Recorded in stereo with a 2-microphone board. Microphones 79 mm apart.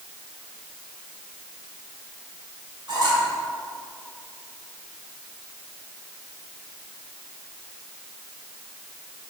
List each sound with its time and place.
2.9 s a squeak: 60° right (ahead or behind), 1.7 m